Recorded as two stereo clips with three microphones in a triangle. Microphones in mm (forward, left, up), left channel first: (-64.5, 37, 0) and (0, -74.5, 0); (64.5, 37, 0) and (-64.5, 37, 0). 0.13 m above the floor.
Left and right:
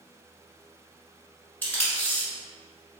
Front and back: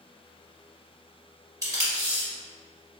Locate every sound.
1.6 s tape being pulled: straight behind, 1.6 m